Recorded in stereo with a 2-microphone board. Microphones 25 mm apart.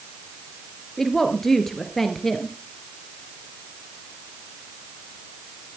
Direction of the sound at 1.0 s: 10° left (ahead or behind).